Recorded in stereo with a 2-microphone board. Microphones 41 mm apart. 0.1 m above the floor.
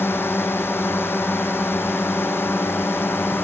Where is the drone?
75° left (ahead or behind).